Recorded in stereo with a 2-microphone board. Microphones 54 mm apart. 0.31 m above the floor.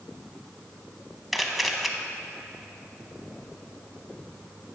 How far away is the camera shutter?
About 0.8 m.